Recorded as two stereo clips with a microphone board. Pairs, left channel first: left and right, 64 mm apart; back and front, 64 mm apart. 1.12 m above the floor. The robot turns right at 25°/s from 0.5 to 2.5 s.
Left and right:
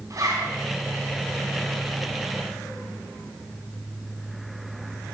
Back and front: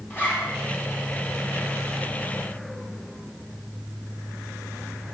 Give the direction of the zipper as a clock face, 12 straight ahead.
4 o'clock.